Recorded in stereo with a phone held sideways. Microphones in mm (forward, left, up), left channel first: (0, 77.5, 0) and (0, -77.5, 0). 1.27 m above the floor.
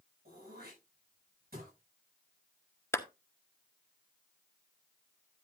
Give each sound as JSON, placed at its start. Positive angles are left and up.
{"t": 0.2, "sound": "throat clearing", "side_deg": -85, "distance_m": 9.0}
{"t": 2.9, "sound": "a clap", "side_deg": 15, "distance_m": 0.9}